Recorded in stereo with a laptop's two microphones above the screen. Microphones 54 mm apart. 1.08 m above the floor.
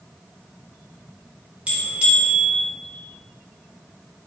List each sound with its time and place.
1.7 s a bell: 20° right (ahead or behind), 1.5 m